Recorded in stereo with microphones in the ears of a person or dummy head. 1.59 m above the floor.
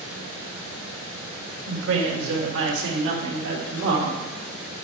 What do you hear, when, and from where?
1.7 s a woman speaking: 80° right, 2.5 m; by 4.8 s 70° right (ahead or behind), 4.5 m